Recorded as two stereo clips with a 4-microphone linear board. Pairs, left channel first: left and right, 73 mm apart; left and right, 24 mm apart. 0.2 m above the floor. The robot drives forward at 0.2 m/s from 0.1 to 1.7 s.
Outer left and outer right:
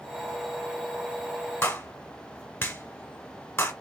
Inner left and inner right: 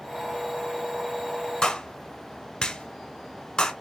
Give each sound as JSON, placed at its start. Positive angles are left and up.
{"t": 1.6, "sound": "a clap", "side_deg": 30, "distance_m": 1.1}